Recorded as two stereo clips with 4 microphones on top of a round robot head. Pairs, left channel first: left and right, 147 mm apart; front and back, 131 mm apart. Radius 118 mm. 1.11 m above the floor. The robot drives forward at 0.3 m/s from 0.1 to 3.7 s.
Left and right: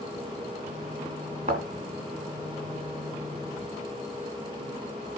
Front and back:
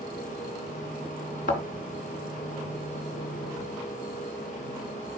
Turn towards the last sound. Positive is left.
turn(degrees=-45)